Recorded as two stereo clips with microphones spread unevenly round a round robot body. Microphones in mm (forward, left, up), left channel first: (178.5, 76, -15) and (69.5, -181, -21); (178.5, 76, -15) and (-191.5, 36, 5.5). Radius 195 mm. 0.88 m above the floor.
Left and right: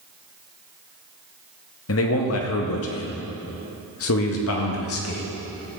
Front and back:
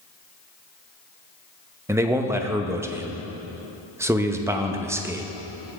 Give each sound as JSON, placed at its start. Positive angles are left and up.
{"t": 1.9, "sound": "a man speaking", "azimuth_deg": 100, "distance_m": 0.7}